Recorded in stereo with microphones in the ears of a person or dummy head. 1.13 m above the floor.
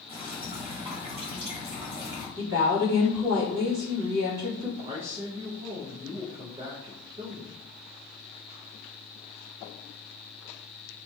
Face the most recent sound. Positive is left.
turn(degrees=-30)  # may be behind; listen again after turning